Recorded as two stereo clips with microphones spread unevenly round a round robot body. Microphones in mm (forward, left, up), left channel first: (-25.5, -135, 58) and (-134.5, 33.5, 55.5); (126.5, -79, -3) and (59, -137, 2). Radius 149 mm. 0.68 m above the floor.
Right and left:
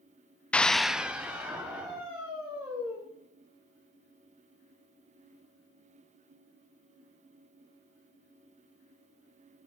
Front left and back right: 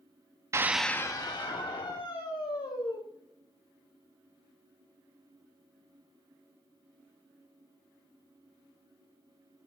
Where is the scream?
140° right, 0.6 m; by 3.0 s 40° left, 2.5 m.